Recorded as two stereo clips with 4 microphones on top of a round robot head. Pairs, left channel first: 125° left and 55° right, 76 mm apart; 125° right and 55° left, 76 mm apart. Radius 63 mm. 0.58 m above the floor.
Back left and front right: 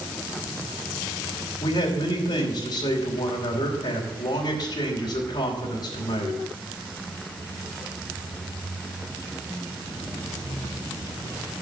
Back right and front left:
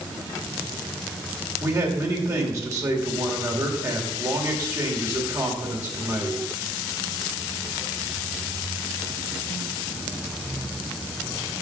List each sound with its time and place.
1.6 s a man speaking: 100° left, 2.5 m